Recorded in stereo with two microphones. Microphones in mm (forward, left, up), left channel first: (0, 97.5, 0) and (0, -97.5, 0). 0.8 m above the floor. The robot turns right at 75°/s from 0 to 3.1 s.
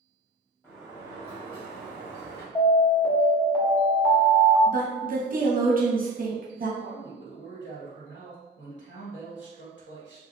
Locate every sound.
0.6 s a sliding door: 165° left, 1.3 m; by 2.5 s 55° right, 1.3 m
2.5 s an alarm: 20° left (ahead or behind), 1.0 m; by 4.6 s 5° left (ahead or behind), 1.0 m
4.7 s a woman speaking: 45° right (ahead or behind), 0.7 m
6.8 s a man speaking: 65° left (ahead or behind), 1.4 m